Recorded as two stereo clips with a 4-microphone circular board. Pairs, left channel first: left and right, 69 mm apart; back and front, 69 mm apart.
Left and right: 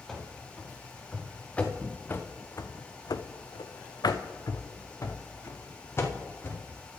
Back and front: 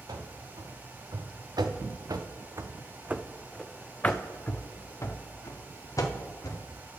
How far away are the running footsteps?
About 2.0 m.